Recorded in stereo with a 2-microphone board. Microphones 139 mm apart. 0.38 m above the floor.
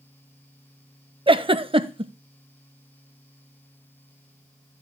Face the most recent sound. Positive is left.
turn(degrees=-40)  # may be behind; listen again after turning